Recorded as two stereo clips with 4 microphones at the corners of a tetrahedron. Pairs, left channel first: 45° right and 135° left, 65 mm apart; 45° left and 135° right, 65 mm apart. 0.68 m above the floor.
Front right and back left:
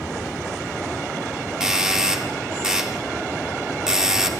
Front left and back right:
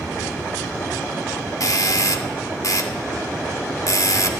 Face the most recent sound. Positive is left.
turn(degrees=55)